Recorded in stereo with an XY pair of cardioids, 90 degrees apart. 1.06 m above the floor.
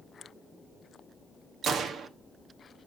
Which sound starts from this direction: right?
A gunshot, at 1.6 s.